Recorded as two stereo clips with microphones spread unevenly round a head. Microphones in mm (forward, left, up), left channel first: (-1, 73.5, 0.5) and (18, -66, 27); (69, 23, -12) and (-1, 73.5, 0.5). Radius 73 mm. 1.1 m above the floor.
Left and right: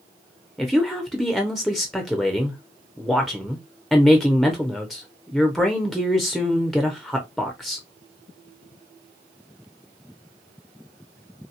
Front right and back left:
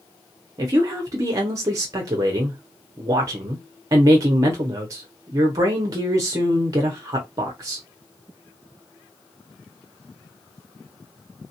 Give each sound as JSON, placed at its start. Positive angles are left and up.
{"t": 0.6, "sound": "a woman speaking", "azimuth_deg": 170, "distance_m": 0.6}